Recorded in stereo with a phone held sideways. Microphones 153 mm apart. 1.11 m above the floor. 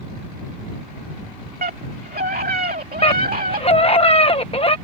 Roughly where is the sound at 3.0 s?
Left.